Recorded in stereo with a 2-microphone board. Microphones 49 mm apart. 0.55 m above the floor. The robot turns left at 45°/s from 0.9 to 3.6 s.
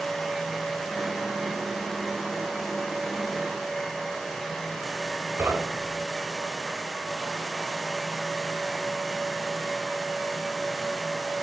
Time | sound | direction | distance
5.4 | knocking | 45° right (ahead or behind) | 3 m